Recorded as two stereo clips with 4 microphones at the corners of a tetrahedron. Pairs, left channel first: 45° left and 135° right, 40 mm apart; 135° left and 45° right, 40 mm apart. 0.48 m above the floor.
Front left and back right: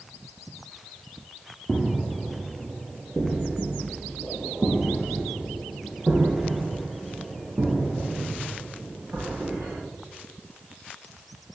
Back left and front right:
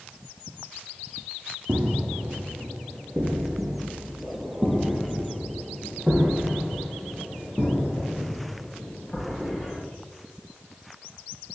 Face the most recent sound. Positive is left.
turn(degrees=-130)